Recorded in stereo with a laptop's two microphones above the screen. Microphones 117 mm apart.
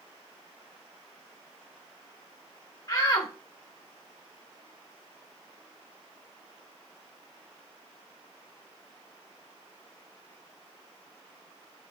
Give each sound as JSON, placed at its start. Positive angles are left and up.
{"t": 2.9, "sound": "a shout", "side_deg": 35, "distance_m": 0.9}